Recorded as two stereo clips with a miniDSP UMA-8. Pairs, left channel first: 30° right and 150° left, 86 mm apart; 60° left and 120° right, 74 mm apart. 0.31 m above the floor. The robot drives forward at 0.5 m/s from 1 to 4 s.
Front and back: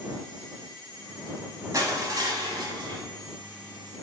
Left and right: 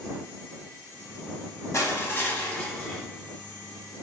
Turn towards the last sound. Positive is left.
turn(degrees=150)